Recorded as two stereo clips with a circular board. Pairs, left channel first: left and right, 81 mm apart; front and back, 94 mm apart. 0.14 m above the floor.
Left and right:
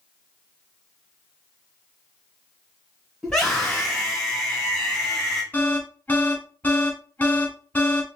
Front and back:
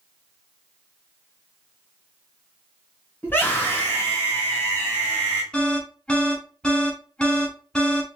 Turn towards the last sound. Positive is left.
turn(degrees=65)